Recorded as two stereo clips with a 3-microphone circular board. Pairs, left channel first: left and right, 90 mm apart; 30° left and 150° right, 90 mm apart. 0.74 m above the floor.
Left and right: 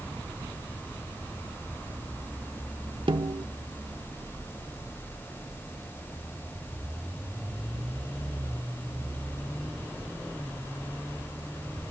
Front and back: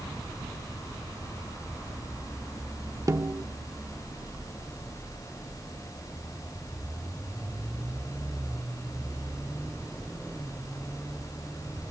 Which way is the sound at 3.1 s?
95° right.